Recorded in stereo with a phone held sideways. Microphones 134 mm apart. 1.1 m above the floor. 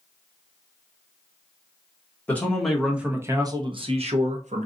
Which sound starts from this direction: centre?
A man speaking, at 2.3 s.